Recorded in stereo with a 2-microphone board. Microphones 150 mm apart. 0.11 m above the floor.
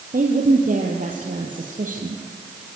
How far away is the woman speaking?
About 2.5 m.